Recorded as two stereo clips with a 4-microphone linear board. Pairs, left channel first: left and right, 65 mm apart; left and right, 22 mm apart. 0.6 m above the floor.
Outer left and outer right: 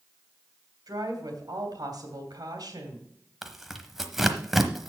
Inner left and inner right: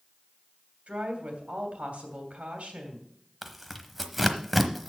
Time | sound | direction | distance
0.9 | a woman speaking | 75° right (ahead or behind) | 3 m
3.4 | tearing paper | 5° right (ahead or behind) | 1.0 m